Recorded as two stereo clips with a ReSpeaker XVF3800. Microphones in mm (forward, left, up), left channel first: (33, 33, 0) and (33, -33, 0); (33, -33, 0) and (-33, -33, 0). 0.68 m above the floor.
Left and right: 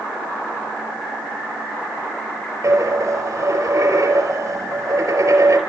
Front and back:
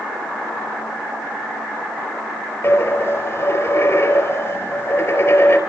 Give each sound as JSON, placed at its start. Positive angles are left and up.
{"t": 2.6, "sound": "a dropped coin", "azimuth_deg": -50, "distance_m": 4.5}